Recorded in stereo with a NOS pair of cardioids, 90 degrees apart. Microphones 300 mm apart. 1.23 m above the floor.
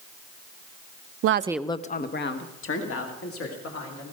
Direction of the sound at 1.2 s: 55° right.